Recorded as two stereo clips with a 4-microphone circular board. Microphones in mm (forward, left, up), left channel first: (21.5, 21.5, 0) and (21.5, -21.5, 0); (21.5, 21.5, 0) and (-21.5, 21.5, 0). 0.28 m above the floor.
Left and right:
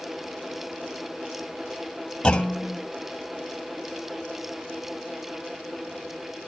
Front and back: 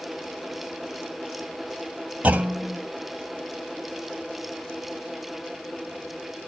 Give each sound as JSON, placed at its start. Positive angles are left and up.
{"t": 2.2, "sound": "a clunk", "azimuth_deg": 140, "distance_m": 1.0}